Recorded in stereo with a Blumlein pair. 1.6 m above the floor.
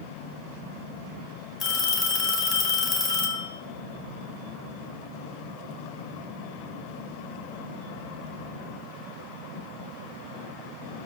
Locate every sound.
1.6 s a phone ringing: 30° left, 1.7 m